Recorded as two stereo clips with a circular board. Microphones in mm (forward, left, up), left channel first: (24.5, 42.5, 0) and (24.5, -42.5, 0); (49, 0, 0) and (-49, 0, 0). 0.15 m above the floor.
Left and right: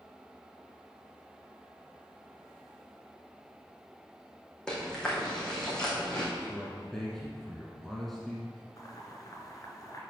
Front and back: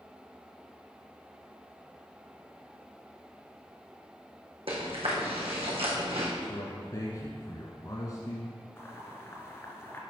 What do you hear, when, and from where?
4.7 s chewing: 175° left, 3 m
6.4 s a man speaking: 5° left, 1.3 m
8.8 s boiling: 55° left, 1.6 m